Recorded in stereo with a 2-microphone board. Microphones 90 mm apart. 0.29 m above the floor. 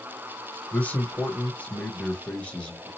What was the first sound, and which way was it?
A man speaking, 15° left (ahead or behind).